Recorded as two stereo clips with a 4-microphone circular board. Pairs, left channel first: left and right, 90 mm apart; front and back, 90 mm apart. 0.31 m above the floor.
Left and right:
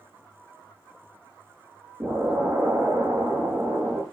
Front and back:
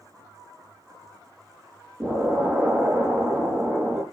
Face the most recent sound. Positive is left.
turn(degrees=-125)